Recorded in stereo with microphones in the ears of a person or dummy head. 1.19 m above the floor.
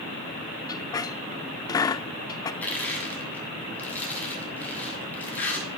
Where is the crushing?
10° left (ahead or behind), 7 m.